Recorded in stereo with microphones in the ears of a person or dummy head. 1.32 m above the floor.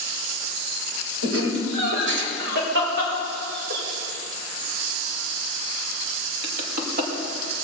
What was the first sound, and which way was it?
Laughter, 85° right.